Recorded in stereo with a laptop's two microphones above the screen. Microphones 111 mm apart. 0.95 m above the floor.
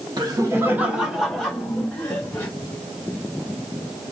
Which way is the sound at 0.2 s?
40° right (ahead or behind).